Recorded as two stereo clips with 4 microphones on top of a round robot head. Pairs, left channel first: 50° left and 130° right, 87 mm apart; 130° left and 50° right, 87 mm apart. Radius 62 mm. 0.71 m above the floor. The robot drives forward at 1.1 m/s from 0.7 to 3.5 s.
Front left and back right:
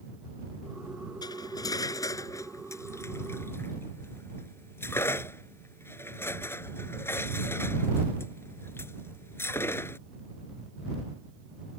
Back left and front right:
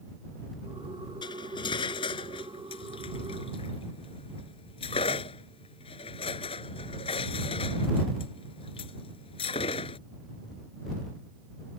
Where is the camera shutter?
No camera shutter in this recording.